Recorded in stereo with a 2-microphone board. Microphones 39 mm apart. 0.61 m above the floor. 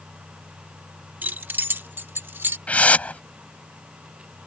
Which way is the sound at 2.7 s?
35° left (ahead or behind).